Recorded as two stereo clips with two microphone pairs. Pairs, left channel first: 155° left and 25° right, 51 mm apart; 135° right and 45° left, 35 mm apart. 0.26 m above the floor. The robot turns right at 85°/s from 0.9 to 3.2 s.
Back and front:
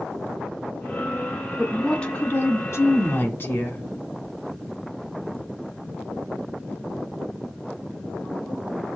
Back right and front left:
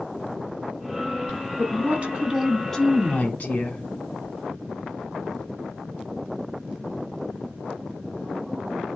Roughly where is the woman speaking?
Ahead left.